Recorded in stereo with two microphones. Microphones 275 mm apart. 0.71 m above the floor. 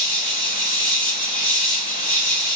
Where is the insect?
30° left (ahead or behind), 5.5 m.